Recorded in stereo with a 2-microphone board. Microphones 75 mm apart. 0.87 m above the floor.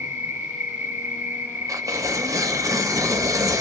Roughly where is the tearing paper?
Right.